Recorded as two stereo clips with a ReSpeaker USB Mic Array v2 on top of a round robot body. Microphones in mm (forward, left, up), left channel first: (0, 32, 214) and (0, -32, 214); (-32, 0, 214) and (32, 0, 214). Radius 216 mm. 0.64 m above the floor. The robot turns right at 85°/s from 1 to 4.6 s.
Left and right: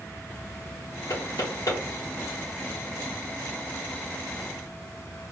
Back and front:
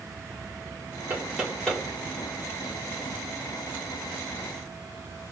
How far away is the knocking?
About 2.5 m.